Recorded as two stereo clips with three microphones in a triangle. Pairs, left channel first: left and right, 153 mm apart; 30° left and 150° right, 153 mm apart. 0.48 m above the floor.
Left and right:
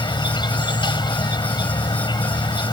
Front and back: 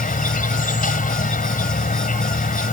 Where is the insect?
35° left.